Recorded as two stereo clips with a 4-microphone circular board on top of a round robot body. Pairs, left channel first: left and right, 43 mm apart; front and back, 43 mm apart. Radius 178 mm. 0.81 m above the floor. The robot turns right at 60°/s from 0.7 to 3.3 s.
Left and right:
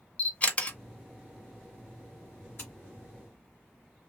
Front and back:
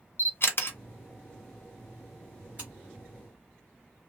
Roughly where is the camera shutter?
Ahead left.